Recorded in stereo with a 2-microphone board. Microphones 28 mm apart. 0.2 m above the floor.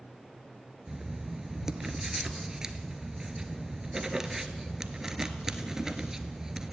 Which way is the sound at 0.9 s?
20° right (ahead or behind).